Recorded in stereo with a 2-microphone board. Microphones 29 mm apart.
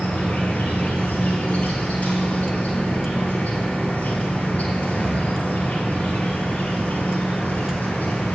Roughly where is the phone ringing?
No phone ringing in this recording.